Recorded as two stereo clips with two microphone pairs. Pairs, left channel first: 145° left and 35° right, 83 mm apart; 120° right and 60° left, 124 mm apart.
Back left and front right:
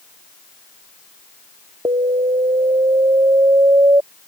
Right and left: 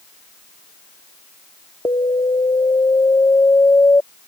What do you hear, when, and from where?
1.9 s an alarm: 55° right